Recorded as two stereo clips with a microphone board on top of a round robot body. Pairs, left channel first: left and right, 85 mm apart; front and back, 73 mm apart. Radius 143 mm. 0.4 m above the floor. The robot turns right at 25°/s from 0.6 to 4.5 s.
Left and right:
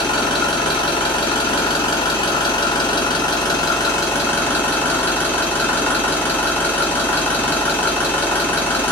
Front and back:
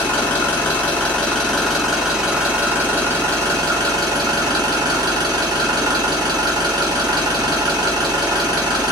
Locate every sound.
0.0 s an engine running: 60° left, 2 m; by 8.9 s 160° left, 2 m